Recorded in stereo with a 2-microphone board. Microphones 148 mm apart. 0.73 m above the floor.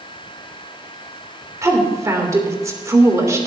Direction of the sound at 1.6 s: 20° right (ahead or behind).